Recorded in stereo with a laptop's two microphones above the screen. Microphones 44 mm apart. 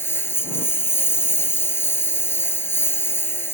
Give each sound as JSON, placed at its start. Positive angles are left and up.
{"t": 0.0, "sound": "a lawn mower", "side_deg": 70}